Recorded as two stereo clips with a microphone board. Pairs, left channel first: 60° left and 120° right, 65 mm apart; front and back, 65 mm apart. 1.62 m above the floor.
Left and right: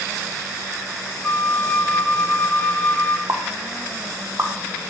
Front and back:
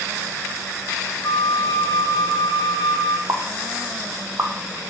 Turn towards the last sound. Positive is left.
turn(degrees=-150)